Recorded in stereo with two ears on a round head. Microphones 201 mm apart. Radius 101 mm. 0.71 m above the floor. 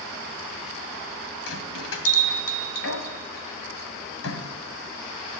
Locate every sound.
1.5 s a bell: 70° left (ahead or behind), 2 m